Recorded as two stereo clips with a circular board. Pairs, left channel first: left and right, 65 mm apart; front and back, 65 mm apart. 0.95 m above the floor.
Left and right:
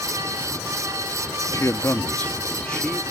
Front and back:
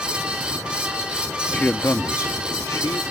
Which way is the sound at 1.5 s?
65° left.